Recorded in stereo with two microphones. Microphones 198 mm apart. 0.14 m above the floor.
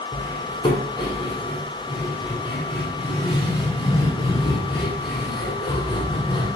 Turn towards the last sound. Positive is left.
turn(degrees=25)  # may be behind; listen again after turning